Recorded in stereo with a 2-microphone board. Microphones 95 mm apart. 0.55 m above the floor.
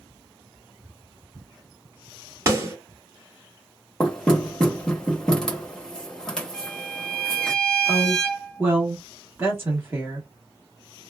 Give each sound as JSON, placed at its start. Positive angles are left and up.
{"t": 2.5, "sound": "a snare drum", "side_deg": -30, "distance_m": 1.6}
{"t": 4.0, "sound": "knocking", "side_deg": 5, "distance_m": 1.0}
{"t": 6.5, "sound": "a violin", "side_deg": 10, "distance_m": 1.3}
{"t": 7.9, "sound": "a woman speaking", "side_deg": -25, "distance_m": 1.2}